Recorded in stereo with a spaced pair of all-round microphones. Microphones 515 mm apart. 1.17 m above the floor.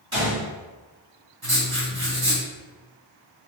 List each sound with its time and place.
0.1 s a gunshot: 65° right (ahead or behind), 1.8 m
1.4 s writing: 45° right (ahead or behind), 1.3 m